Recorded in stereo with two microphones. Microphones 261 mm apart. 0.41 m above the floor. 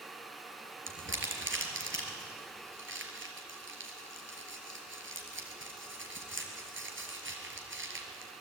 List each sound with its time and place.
0.9 s crumpling: 50° right (ahead or behind), 3.5 m